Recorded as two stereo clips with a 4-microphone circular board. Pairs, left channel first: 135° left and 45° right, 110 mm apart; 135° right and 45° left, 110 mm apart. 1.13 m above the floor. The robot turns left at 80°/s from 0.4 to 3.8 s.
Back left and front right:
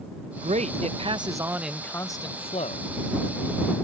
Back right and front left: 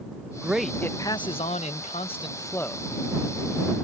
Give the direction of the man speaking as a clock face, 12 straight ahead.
1 o'clock.